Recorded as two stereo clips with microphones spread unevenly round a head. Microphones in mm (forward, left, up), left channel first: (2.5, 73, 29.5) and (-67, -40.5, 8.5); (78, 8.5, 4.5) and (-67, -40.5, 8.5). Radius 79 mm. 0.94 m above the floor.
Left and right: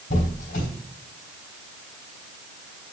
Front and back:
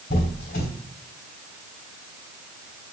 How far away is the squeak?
About 3 m.